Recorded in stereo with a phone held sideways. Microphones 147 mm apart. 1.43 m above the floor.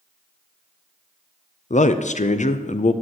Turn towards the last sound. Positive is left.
turn(degrees=55)  # may be behind; listen again after turning